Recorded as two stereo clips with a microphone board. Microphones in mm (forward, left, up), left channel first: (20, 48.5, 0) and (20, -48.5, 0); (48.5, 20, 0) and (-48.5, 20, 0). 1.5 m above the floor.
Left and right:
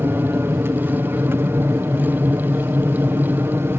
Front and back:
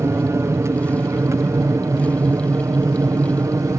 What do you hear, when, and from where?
0.0 s an aircraft: 140° right